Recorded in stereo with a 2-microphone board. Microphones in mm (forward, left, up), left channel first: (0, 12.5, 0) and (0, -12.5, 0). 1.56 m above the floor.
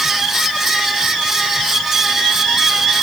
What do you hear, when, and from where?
Only background noise.